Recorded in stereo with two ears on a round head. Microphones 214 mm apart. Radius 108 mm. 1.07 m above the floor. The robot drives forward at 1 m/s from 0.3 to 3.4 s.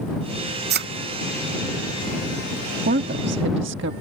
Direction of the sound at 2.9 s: 40° right (ahead or behind).